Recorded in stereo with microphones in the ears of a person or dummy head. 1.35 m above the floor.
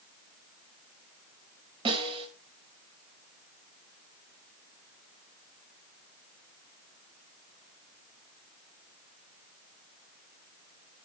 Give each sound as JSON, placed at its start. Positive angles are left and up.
{"t": 1.9, "sound": "a snare drum", "side_deg": -20, "distance_m": 6.0}